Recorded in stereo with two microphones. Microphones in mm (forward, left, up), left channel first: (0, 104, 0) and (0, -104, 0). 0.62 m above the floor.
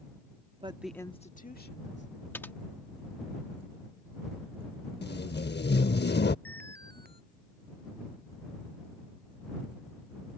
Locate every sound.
0.6 s a woman speaking: 30° right (ahead or behind); by 2.2 s 60° left (ahead or behind)
2.3 s typing on a keyboard: 10° left (ahead or behind)
5.0 s tape being pulled: 55° left (ahead or behind)
6.5 s an alarm: 50° right (ahead or behind)